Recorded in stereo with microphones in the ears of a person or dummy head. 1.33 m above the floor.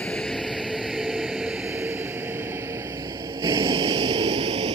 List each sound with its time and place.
0.0 s a vehicle: 10° left (ahead or behind); by 4.8 s 30° right (ahead or behind)